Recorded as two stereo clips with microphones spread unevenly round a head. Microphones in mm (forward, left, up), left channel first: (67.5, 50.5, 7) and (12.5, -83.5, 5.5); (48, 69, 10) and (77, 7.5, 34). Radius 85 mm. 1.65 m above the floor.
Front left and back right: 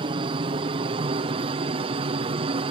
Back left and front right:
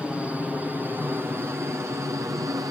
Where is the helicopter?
155° right; by 2.7 s 105° right.